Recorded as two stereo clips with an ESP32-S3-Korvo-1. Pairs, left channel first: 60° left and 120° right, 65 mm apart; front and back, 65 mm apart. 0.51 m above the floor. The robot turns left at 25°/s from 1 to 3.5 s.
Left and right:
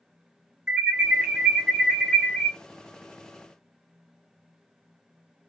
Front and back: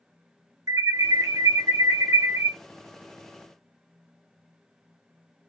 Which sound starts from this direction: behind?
An alarm, at 0.7 s.